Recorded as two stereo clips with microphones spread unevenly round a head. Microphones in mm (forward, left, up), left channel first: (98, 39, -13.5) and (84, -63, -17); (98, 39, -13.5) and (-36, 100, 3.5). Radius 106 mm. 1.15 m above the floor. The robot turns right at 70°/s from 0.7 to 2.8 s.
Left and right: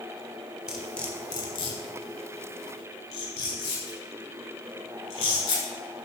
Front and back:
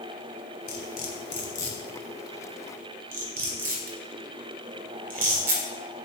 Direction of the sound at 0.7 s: 15° right.